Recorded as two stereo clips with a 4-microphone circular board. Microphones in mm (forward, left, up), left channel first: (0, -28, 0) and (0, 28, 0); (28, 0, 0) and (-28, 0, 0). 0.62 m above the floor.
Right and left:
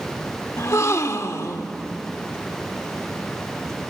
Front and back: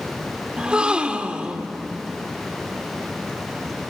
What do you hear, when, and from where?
0.6 s a gasp: 110° right, 1.0 m